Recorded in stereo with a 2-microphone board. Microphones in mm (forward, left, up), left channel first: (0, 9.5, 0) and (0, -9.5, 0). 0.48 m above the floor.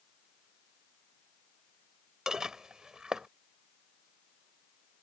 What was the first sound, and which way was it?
Dishes clattering, 35° right (ahead or behind).